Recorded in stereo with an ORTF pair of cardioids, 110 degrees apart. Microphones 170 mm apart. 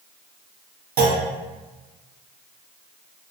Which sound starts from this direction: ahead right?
A clunk, at 1.0 s.